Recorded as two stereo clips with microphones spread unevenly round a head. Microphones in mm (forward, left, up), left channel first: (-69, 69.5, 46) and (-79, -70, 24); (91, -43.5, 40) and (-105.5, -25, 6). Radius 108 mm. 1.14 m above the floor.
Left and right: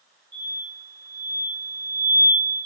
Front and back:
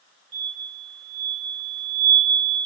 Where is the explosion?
140° left, 1.1 m.